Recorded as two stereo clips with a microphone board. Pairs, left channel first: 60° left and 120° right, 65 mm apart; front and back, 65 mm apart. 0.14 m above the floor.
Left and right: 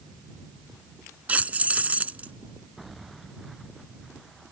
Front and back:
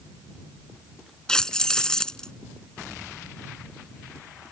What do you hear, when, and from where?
1.3 s keys jangling: 70° right